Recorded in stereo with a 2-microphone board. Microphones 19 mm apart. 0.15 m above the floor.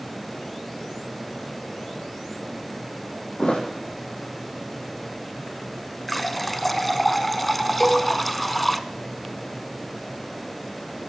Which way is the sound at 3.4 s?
80° left.